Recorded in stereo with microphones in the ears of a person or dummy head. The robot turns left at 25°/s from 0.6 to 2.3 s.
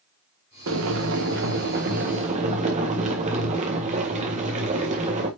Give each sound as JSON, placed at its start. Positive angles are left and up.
{"t": 0.7, "sound": "boiling", "azimuth_deg": -100, "distance_m": 1.7}